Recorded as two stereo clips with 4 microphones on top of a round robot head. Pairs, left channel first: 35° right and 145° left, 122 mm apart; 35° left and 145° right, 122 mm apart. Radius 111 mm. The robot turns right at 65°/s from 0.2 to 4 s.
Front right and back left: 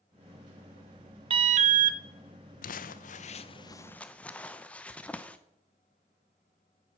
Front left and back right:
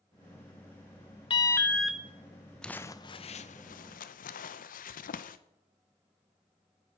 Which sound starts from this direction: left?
An alarm, at 1.3 s.